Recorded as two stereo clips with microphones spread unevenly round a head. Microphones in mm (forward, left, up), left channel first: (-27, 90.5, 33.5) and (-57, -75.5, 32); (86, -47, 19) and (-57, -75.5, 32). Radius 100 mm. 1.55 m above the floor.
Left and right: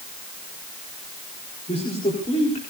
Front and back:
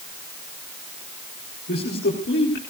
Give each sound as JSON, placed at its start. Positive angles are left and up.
{"t": 1.7, "sound": "a man speaking", "azimuth_deg": 20, "distance_m": 4.0}